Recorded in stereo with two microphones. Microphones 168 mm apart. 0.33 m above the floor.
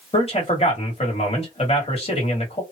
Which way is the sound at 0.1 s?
40° left (ahead or behind).